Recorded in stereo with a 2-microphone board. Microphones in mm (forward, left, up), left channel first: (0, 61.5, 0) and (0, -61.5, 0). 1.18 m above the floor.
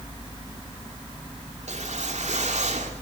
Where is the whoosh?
75° right (ahead or behind), 2.5 m.